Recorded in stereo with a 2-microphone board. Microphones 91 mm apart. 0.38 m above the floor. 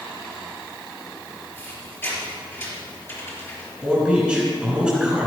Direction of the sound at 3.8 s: 10° right (ahead or behind).